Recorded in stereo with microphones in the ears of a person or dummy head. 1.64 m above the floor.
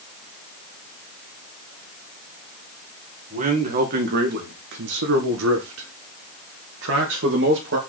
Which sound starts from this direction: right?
A man speaking, at 3.3 s.